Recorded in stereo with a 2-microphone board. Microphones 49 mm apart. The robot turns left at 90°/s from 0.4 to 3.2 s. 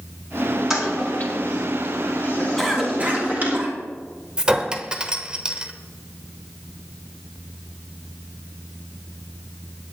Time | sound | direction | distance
0.7 | a toilet flushing | 5° right (ahead or behind) | 5 m
2.6 | a cough | 5° left (ahead or behind) | 3.5 m
4.4 | a clink | 20° right (ahead or behind) | 1.1 m